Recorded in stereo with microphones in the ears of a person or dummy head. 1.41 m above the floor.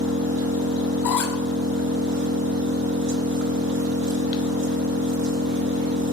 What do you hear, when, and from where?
0.0 s an engine running: 60° right (ahead or behind), 1.0 m
1.0 s a squeak: 5° left (ahead or behind), 1.0 m